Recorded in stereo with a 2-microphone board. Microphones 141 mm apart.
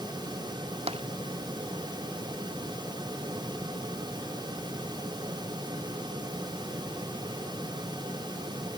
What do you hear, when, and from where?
0.9 s tapping: 45° right (ahead or behind)